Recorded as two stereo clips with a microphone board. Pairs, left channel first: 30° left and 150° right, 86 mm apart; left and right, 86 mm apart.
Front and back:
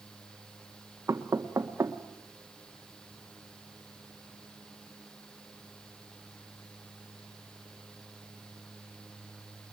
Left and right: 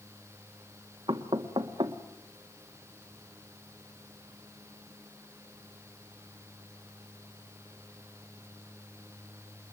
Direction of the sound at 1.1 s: 95° right.